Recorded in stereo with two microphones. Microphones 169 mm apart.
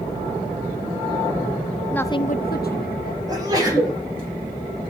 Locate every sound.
1.9 s a woman speaking: 5° left (ahead or behind), 0.7 m; by 3.2 s 65° left (ahead or behind), 1.5 m
3.3 s a sneeze: 25° right (ahead or behind), 7 m